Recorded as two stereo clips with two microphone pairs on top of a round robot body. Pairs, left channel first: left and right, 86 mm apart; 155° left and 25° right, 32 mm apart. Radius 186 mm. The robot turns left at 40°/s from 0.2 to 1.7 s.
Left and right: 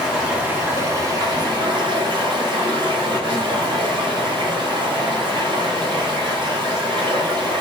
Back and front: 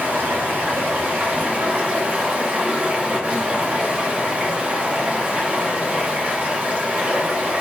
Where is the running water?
10° right, 1.1 m; by 7.6 s 70° right, 1.1 m.